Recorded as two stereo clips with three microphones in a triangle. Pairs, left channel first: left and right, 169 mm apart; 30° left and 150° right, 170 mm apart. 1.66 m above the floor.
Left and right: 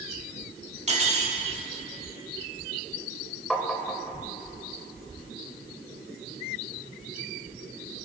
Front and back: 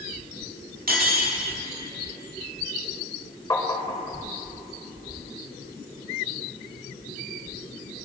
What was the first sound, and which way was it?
Cutlery clinking, 135° right.